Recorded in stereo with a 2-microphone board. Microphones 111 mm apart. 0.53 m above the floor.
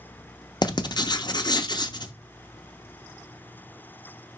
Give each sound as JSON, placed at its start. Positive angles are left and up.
{"t": 0.6, "sound": "writing", "side_deg": 40, "distance_m": 0.5}